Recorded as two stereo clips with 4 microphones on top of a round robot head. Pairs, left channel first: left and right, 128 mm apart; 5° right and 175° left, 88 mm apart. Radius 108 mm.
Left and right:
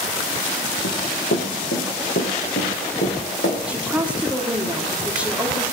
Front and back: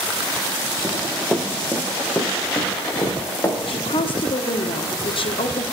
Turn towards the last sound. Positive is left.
turn(degrees=-10)